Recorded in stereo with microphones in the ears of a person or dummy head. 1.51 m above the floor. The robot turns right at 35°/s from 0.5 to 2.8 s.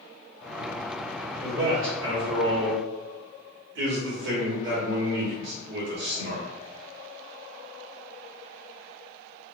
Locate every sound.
1.4 s a man speaking: 120° right, 1.4 m; by 6.4 s 75° right, 1.4 m